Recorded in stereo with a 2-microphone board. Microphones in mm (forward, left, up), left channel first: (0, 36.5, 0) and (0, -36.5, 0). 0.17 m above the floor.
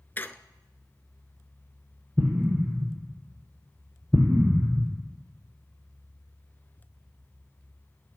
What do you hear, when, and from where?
0.2 s a squeak: 25° left (ahead or behind), 0.7 m
2.2 s an explosion: 20° right (ahead or behind), 1.5 m